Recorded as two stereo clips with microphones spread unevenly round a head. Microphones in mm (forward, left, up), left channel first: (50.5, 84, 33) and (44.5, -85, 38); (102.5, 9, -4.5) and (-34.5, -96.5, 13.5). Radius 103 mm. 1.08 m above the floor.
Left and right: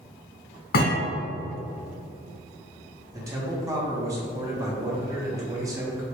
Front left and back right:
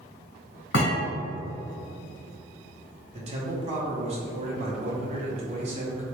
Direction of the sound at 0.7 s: 75° left.